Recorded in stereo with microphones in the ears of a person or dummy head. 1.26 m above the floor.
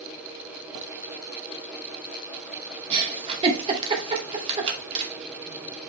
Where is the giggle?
35° right (ahead or behind), 2 m.